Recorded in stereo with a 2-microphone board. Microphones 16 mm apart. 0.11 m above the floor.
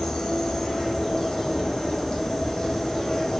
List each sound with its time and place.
0.0 s an insect: 55° left (ahead or behind), 2 m